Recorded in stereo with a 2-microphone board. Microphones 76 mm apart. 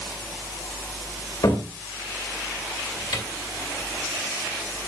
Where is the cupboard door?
80° left, 2 m.